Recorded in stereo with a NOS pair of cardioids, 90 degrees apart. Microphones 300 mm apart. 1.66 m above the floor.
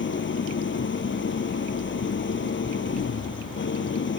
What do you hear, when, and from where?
0.0 s an engine running: 35° left